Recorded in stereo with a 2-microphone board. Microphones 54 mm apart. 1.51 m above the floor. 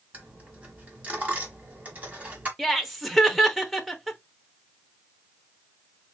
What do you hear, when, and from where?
0.1 s a dropped coin: 30° right (ahead or behind), 1.6 m
2.6 s laughter: centre (ahead or behind), 0.9 m